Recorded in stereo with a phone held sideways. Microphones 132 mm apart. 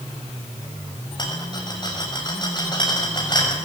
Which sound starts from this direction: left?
A rattle, at 1.2 s.